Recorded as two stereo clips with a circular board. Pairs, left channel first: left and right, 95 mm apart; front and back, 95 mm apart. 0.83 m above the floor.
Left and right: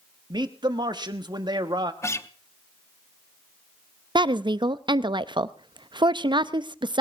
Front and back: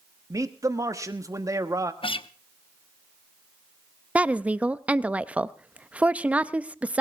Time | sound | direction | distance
0.3 | a man speaking | 125° right | 1.1 m
2.0 | a guitar | 30° left | 0.7 m
4.2 | a woman speaking | 105° right | 0.5 m